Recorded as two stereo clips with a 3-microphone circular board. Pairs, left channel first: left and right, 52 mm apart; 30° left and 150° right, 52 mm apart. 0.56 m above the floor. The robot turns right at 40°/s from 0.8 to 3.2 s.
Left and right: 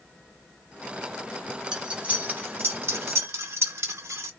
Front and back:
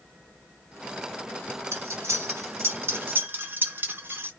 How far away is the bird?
I don't hear a bird.